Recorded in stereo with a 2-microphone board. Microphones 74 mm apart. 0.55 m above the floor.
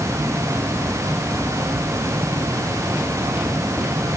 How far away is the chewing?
I don't hear chewing.